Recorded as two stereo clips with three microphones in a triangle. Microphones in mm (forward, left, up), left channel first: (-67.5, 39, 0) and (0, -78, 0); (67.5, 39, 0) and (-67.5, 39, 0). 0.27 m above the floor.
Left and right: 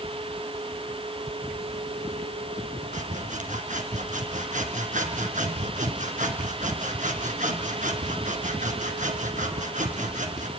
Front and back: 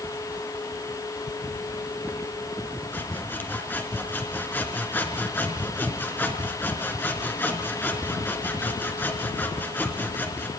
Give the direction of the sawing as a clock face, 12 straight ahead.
2 o'clock.